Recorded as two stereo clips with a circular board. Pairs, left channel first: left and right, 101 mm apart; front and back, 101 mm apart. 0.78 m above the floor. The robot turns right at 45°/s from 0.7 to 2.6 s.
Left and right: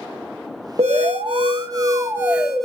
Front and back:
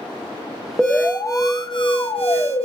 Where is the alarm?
80° right, 0.9 m; by 2.6 s straight ahead, 0.9 m.